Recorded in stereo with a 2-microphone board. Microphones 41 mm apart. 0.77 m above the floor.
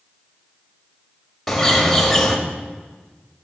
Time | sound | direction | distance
1.5 | a bird | 5° left (ahead or behind) | 1.2 m